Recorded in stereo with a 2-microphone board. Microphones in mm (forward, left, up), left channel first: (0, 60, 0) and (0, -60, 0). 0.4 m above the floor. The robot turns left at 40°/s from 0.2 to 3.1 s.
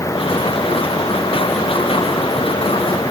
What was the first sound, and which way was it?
Only background noise.